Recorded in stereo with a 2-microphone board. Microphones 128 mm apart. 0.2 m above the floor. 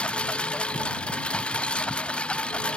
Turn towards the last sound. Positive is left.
turn(degrees=5)  # may be behind; listen again after turning